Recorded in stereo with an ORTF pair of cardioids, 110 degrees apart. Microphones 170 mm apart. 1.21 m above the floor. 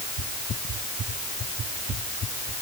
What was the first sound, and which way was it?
Only background noise.